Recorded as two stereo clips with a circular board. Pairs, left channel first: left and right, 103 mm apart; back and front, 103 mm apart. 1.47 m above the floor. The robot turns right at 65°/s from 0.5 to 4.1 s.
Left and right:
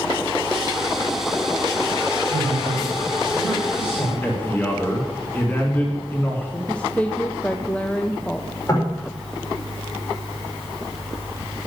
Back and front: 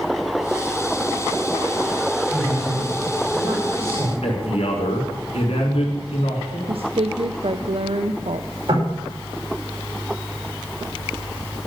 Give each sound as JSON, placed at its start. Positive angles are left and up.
{"t": 2.3, "sound": "a man speaking", "azimuth_deg": -85, "distance_m": 6.5}
{"t": 4.2, "sound": "a man speaking", "azimuth_deg": 160, "distance_m": 4.0}
{"t": 6.7, "sound": "a woman speaking", "azimuth_deg": 15, "distance_m": 0.6}
{"t": 8.7, "sound": "knocking", "azimuth_deg": 30, "distance_m": 5.0}